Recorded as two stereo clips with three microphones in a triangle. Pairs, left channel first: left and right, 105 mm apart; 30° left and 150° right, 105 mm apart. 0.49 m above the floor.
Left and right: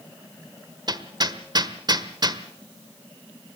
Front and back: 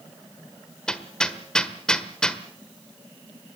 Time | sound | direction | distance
0.9 | hammering | 50° right | 1.4 m